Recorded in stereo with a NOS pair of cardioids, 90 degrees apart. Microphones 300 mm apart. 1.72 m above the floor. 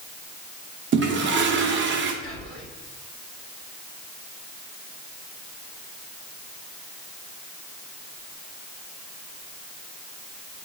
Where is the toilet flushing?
40° right, 0.9 m.